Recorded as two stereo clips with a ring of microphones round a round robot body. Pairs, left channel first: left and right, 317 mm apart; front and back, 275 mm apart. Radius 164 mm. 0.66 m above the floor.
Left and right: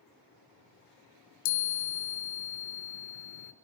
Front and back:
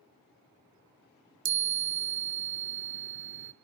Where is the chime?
130° left, 1.0 m.